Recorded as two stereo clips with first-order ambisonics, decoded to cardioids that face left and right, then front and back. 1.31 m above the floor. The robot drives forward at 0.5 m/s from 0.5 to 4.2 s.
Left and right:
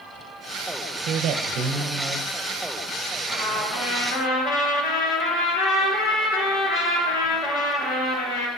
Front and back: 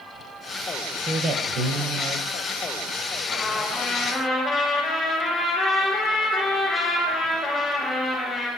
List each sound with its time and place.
1.1 s a man speaking: 120° right, 0.6 m; by 2.3 s 150° right, 1.0 m
3.3 s a trumpet: 70° left, 2.5 m; by 8.5 s 85° left, 2 m